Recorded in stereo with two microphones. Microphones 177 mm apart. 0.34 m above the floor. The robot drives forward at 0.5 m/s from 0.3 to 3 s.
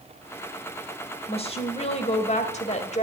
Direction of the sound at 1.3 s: 35° left (ahead or behind).